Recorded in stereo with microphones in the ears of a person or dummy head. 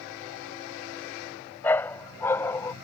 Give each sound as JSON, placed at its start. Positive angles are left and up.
{"t": 1.6, "sound": "a dog barking", "side_deg": 5}